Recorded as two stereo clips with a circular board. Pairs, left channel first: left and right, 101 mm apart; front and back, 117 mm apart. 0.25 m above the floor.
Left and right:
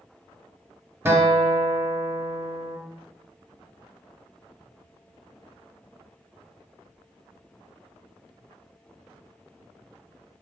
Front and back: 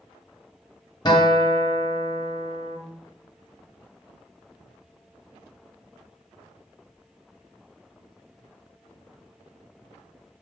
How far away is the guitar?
About 0.8 m.